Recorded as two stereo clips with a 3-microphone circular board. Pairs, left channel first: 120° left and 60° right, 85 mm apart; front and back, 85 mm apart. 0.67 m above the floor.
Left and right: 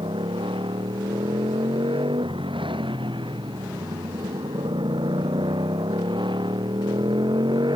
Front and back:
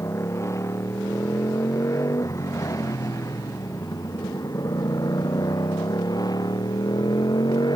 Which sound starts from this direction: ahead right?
A motorcycle, at 0.0 s.